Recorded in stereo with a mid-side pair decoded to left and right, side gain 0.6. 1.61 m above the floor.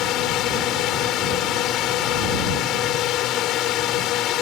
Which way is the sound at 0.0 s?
60° left.